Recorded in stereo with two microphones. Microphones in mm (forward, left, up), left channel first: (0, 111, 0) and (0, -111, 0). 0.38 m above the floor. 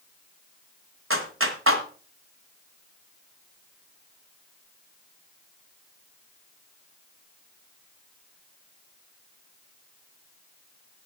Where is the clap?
70° right (ahead or behind), 1.8 m.